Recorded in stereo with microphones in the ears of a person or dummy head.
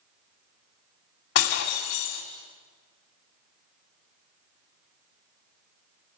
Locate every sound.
1.4 s breaking glass: 70° left (ahead or behind), 3 m